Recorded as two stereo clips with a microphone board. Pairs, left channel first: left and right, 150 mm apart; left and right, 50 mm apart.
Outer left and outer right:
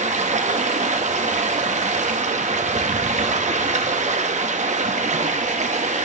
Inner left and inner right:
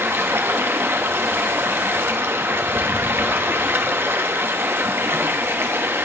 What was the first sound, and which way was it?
Running water, 50° right (ahead or behind).